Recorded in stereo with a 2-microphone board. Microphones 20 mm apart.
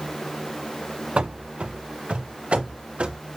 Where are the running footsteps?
65° right (ahead or behind), 0.6 m; by 3.2 s 70° right (ahead or behind), 2.5 m.